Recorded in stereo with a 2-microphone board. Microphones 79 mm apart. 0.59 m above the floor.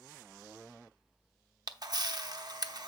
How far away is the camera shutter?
About 0.7 m.